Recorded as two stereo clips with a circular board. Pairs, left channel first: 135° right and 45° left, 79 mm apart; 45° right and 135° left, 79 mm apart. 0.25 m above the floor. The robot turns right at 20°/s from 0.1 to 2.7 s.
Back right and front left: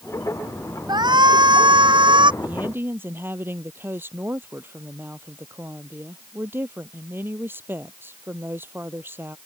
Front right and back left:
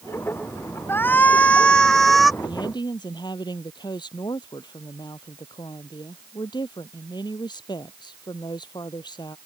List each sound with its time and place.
0.9 s a shout: 20° left; by 2.3 s 45° left
2.4 s a woman speaking: 20° right; by 9.4 s 15° right